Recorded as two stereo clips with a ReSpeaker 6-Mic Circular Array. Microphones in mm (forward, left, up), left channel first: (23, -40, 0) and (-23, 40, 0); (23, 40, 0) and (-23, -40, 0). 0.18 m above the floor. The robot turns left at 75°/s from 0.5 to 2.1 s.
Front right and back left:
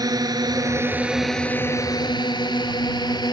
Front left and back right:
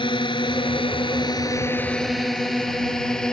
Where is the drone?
80° left; by 3.3 s 20° right.